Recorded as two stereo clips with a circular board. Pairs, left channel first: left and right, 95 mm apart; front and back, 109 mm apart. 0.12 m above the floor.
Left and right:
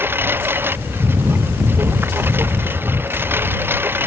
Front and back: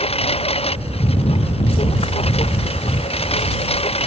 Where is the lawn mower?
25° right.